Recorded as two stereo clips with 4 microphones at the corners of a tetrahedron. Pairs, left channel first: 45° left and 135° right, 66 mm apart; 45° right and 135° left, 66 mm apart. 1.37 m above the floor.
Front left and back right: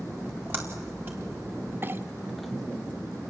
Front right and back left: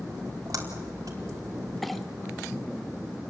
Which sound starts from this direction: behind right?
A clink, at 1.8 s.